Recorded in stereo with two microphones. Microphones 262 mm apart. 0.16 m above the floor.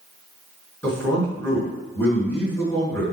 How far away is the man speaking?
About 2 m.